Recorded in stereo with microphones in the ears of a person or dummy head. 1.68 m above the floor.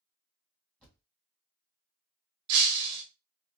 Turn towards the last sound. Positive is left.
turn(degrees=-25)  # may be behind; listen again after turning